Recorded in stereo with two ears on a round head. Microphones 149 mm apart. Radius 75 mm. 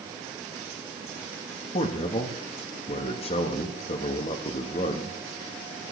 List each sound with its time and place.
1.7 s a man speaking: 35° left (ahead or behind), 1.0 m